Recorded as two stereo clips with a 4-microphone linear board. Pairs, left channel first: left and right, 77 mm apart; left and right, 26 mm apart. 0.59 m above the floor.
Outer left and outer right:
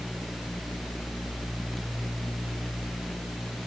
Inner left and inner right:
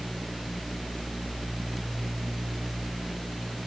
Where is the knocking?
I don't hear knocking.